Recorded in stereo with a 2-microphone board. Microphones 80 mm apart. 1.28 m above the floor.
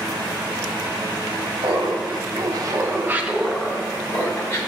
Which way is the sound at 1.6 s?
75° right (ahead or behind).